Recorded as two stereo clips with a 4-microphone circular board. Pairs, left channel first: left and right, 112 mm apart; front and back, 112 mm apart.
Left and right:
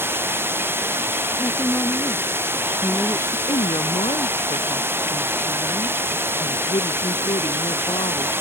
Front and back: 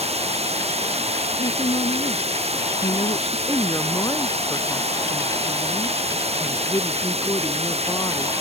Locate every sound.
0.0 s running water: 160° right
1.4 s a woman speaking: 25° left
3.5 s a woman speaking: 60° left